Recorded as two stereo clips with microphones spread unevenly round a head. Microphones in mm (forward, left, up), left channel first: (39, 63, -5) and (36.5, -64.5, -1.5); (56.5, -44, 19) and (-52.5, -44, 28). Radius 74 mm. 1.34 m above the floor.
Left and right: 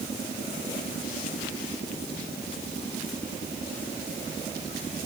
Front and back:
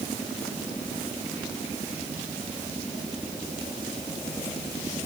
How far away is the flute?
I don't hear a flute.